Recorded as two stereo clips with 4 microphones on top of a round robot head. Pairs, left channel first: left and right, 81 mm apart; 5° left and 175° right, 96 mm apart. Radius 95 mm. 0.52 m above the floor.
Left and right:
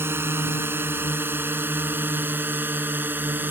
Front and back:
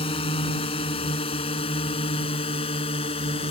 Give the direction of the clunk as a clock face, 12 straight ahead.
I don't hear a clunk.